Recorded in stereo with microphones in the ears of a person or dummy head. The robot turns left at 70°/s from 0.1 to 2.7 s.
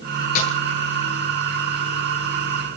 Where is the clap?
No clap in this recording.